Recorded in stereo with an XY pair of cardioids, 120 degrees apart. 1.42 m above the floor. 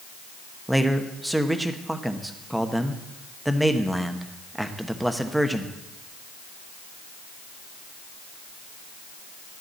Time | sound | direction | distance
0.7 | a man speaking | 5° right | 1.1 m